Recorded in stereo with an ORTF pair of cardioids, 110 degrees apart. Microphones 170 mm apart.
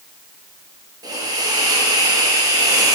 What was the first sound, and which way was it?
A hiss, 20° right.